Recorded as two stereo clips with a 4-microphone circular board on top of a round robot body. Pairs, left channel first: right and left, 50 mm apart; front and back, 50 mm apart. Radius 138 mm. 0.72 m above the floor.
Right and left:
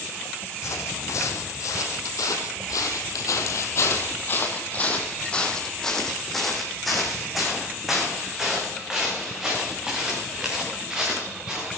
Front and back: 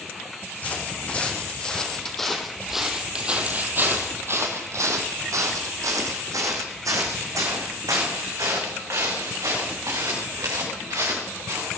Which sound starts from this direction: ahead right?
Footsteps, at 0.6 s.